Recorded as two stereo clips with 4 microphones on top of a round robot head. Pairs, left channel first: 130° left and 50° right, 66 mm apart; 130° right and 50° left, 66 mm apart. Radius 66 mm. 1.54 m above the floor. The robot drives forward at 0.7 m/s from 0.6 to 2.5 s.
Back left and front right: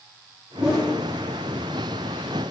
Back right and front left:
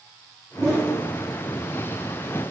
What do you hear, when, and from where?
0.6 s a whoosh: 20° left, 0.7 m; by 1.0 s 65° left, 0.7 m